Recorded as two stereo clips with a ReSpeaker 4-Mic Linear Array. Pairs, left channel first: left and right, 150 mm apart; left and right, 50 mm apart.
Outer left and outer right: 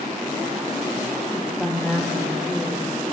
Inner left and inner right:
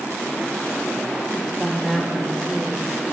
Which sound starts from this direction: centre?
A woman speaking, at 1.3 s.